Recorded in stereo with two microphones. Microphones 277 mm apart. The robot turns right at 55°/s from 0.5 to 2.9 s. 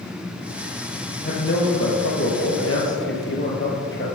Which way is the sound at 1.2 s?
35° left.